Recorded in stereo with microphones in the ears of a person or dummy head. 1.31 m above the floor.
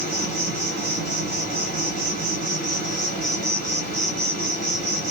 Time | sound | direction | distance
0.0 | an insect | 50° right (ahead or behind) | 2 m